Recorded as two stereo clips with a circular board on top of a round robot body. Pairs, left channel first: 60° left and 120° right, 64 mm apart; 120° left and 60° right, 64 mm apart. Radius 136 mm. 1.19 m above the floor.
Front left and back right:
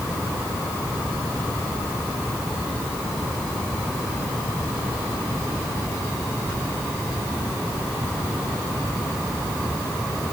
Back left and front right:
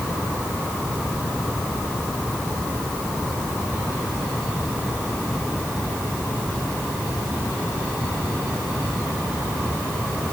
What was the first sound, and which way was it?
Only background noise.